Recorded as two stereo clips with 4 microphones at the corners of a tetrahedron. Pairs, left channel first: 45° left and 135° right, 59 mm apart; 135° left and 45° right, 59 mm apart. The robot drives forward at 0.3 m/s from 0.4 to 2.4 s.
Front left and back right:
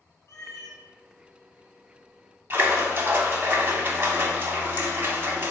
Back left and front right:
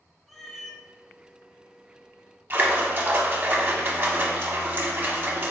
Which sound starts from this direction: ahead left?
A cat meowing, at 0.3 s.